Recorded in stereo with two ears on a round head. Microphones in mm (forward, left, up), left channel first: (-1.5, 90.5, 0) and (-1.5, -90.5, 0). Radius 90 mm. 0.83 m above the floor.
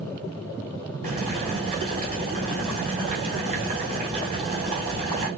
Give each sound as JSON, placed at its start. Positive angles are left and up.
{"t": 1.0, "sound": "boiling", "side_deg": -30, "distance_m": 3.0}